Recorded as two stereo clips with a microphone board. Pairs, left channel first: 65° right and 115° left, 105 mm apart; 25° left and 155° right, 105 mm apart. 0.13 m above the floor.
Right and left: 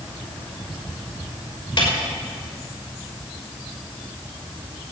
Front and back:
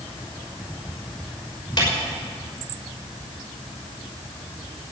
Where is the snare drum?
30° right, 6.5 m.